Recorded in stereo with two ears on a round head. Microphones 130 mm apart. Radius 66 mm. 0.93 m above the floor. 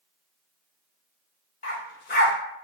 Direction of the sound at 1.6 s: 65° left (ahead or behind).